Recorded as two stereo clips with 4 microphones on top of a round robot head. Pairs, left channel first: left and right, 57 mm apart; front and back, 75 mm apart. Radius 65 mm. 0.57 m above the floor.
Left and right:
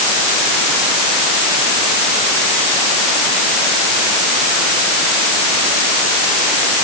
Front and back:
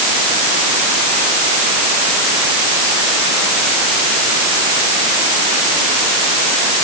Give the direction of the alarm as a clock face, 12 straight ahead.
No alarm in this recording.